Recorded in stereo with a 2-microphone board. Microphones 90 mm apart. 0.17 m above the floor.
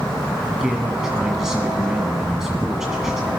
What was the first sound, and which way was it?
A man speaking, 5° right (ahead or behind).